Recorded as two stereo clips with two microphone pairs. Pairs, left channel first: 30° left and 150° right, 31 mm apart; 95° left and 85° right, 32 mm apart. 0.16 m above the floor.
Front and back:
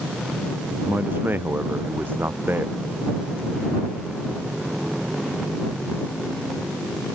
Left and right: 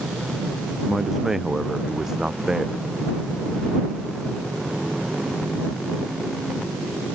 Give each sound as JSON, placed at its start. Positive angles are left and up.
{"t": 0.8, "sound": "a man speaking", "azimuth_deg": -165}